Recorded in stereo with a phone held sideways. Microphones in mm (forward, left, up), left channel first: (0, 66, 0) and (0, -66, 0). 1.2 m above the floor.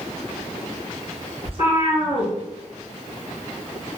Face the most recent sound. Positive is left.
turn(degrees=-45)  # may be behind; listen again after turning